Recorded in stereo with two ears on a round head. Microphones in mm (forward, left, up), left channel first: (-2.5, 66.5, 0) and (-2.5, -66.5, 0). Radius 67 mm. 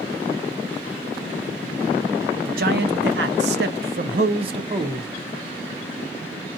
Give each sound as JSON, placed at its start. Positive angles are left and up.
{"t": 2.5, "sound": "a man speaking", "side_deg": -65, "distance_m": 1.0}